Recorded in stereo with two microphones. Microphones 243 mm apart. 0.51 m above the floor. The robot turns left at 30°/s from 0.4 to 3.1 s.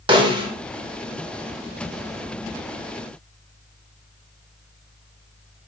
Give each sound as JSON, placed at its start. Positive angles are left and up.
{"t": 0.1, "sound": "a snare drum", "side_deg": -20, "distance_m": 0.8}